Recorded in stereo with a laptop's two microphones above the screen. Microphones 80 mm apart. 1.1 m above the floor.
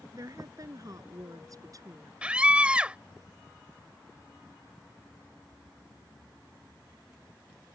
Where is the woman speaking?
45° right (ahead or behind).